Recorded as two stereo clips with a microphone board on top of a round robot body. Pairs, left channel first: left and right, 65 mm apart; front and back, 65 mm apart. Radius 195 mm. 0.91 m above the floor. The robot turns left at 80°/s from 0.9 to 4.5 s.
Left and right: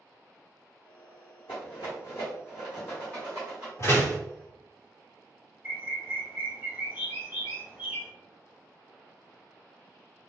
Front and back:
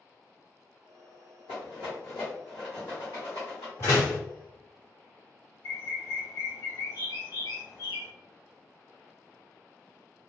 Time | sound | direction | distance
1.5 | a rattle | 145° left | 0.6 m
3.8 | a door slam | 45° left | 1.4 m
5.6 | a bird | 25° right | 1.6 m